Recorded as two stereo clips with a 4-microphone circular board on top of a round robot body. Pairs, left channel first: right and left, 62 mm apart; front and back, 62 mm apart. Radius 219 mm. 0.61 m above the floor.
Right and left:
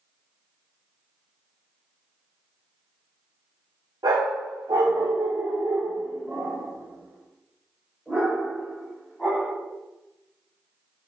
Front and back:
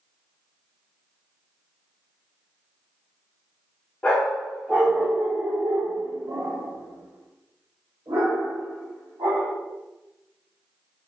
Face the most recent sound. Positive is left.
turn(degrees=-170)